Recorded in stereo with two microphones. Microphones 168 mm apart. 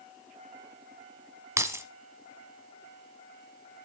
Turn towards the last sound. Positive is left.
turn(degrees=-15)  # may be behind; listen again after turning